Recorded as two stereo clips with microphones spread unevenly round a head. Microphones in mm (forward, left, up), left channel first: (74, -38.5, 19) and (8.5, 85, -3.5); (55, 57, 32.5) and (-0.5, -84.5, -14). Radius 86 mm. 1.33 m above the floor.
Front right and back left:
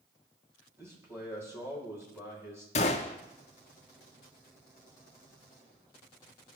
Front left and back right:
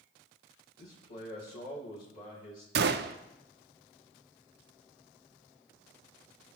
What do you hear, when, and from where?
0.8 s a man speaking: 45° left, 2.5 m
2.8 s a gunshot: 95° right, 0.5 m